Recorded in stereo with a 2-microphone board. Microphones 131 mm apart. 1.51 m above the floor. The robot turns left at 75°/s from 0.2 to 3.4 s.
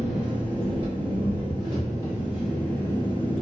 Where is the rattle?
No rattle in this recording.